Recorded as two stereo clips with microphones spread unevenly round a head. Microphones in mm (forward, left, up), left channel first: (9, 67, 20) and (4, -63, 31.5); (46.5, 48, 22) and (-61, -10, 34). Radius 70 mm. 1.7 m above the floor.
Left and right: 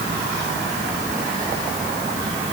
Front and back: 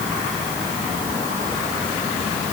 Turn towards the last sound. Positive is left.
No sound to turn to.